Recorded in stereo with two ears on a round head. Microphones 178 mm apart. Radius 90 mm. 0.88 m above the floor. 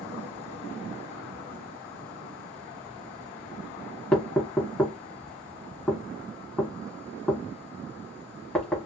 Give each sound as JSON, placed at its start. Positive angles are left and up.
{"t": 4.1, "sound": "knocking", "side_deg": 10, "distance_m": 1.2}